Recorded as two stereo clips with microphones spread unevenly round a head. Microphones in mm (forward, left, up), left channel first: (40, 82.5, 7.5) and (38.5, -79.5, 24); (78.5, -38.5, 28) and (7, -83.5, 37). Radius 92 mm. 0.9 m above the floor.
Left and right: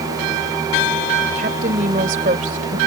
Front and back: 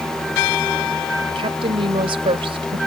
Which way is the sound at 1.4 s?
140° right.